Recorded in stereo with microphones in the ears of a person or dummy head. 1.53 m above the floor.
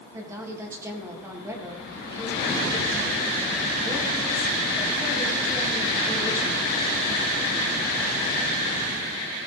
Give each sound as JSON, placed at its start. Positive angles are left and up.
{"t": 0.1, "sound": "a woman speaking", "side_deg": -10, "distance_m": 2.5}